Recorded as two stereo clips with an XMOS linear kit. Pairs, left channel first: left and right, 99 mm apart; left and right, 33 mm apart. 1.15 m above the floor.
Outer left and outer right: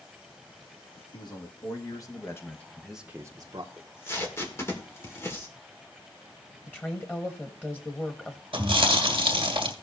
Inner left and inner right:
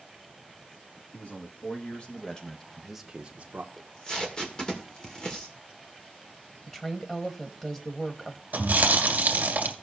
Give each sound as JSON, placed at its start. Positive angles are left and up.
{"t": 1.1, "sound": "a man speaking", "side_deg": 45, "distance_m": 2.0}
{"t": 3.8, "sound": "tape being pulled", "side_deg": 25, "distance_m": 1.6}
{"t": 6.7, "sound": "a woman speaking", "side_deg": 20, "distance_m": 1.1}
{"t": 8.5, "sound": "chewing", "side_deg": -65, "distance_m": 2.0}